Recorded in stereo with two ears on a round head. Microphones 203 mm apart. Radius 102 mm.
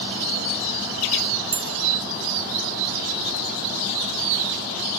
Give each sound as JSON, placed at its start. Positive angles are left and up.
{"t": 1.5, "sound": "a bell", "side_deg": -30, "distance_m": 0.6}